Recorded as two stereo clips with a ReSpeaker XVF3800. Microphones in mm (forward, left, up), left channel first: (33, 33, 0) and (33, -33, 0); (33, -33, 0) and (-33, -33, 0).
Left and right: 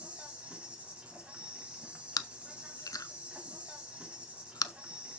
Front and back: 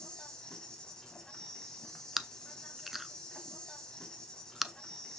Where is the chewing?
95° left, 0.6 m.